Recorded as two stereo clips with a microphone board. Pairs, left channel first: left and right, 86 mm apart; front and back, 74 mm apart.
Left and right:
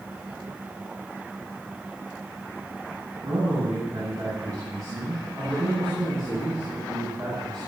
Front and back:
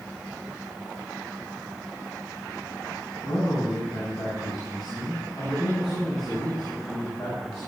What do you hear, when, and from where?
3.2 s a man speaking: 35° right, 8 m